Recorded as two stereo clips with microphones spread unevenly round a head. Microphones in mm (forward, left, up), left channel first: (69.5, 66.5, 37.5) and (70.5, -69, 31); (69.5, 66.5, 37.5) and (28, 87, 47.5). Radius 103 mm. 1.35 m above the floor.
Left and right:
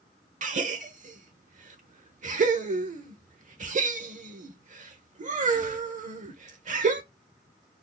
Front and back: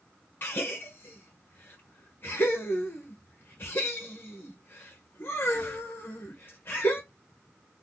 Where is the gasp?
65° right, 0.7 m.